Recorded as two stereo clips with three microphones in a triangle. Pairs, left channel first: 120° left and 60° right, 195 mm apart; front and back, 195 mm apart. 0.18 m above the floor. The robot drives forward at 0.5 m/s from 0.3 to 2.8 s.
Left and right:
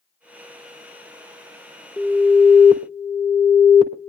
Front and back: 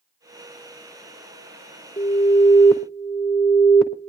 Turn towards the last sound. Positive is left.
turn(degrees=85)